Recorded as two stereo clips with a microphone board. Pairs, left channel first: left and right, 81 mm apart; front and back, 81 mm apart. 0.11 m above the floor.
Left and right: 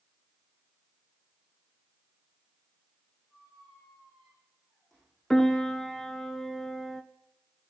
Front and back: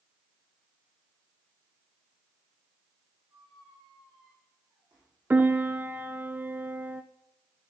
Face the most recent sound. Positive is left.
turn(degrees=165)